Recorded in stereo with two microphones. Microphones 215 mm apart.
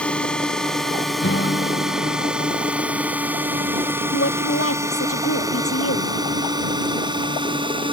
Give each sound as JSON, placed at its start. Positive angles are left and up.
{"t": 0.0, "sound": "a drone", "side_deg": 5}
{"t": 1.2, "sound": "a guitar", "side_deg": 60}
{"t": 4.1, "sound": "a woman speaking", "side_deg": 80}